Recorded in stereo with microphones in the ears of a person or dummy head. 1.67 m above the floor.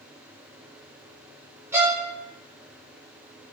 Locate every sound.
1.7 s a violin: 15° right (ahead or behind), 0.6 m